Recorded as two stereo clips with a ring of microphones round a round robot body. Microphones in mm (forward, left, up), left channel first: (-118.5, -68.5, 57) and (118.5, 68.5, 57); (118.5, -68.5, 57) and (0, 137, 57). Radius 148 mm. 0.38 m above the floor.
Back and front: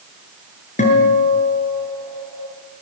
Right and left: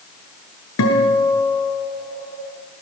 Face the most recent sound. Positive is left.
turn(degrees=-85)